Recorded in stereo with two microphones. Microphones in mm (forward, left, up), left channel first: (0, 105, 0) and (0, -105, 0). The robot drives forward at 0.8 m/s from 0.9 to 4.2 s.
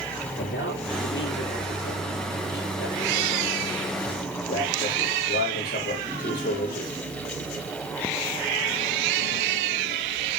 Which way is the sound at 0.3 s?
65° left (ahead or behind).